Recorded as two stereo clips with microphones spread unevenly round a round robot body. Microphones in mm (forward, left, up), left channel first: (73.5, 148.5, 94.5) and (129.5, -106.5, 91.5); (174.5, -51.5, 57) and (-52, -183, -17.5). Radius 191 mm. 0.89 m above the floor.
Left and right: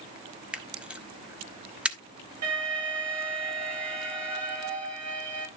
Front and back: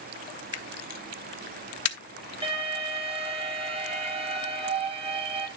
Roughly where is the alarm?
Right.